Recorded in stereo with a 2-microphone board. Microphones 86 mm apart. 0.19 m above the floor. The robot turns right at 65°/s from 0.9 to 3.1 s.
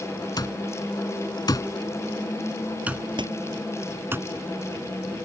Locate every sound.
0.4 s an alarm clock: 55° left (ahead or behind); by 4.2 s 30° right (ahead or behind)
3.2 s a door slam: 65° right (ahead or behind)